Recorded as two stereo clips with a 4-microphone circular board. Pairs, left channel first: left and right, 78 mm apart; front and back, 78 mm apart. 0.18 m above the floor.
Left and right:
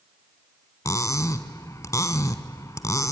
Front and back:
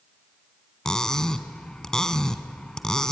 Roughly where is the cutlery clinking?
Left.